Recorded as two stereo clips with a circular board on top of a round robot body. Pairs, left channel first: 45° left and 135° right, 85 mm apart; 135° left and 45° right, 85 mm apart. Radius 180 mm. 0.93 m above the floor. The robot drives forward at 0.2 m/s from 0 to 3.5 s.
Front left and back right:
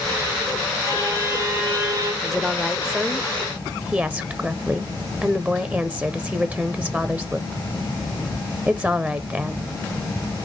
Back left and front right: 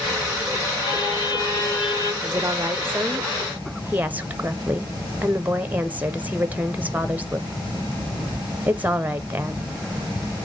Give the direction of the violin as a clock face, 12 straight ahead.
6 o'clock.